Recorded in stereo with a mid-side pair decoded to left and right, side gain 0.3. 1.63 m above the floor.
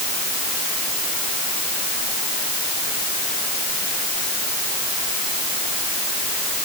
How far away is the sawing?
I don't hear sawing.